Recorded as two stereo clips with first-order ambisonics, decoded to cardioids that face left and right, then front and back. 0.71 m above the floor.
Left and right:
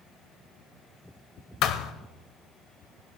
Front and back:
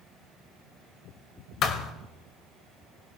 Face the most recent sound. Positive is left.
turn(degrees=50)